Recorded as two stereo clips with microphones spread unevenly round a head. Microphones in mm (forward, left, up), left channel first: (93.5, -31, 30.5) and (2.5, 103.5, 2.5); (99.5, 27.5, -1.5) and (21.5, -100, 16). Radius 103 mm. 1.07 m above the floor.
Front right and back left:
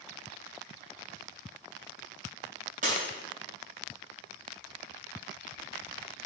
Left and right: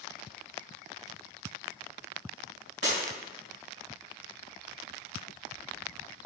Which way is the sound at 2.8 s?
Straight behind.